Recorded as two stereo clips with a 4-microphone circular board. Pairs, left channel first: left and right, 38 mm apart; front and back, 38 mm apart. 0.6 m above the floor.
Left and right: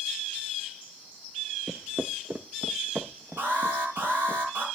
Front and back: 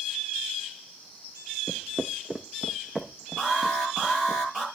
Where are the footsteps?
155° right, 0.6 m; by 4.4 s 85° right, 2.5 m.